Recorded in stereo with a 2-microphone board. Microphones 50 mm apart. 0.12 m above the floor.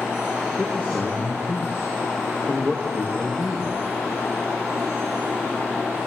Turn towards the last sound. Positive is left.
turn(degrees=-35)  # may be behind; listen again after turning